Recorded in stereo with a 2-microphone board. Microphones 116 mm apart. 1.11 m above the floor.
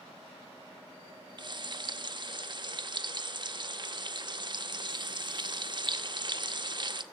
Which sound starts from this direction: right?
Frying, at 1.4 s.